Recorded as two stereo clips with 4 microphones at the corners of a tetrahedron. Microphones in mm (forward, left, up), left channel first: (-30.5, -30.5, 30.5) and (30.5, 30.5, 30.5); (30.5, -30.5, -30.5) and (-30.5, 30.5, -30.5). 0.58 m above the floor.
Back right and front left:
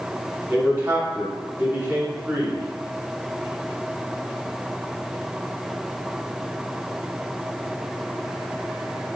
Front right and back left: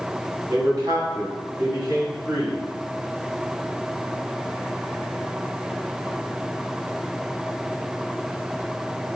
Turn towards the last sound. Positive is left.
turn(degrees=100)